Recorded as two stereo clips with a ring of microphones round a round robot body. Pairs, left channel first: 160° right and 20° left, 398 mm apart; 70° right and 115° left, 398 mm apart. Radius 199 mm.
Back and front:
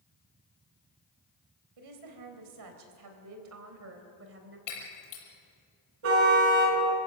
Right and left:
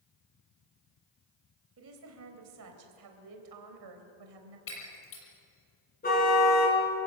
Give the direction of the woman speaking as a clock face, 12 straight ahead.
10 o'clock.